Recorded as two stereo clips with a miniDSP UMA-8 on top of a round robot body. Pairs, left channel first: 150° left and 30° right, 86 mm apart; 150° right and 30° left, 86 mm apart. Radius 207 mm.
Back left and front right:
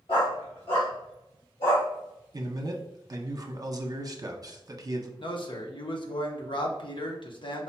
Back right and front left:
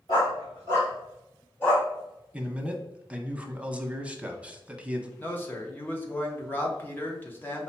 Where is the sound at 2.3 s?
40° right, 0.9 m.